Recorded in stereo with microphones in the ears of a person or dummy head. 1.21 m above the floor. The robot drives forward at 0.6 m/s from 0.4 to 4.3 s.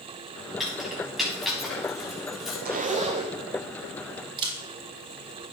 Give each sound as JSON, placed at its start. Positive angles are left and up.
{"t": 0.6, "sound": "keys jangling", "side_deg": 0, "distance_m": 6.5}
{"t": 2.6, "sound": "a zipper", "side_deg": -45, "distance_m": 0.6}
{"t": 4.4, "sound": "a camera shutter", "side_deg": -25, "distance_m": 1.7}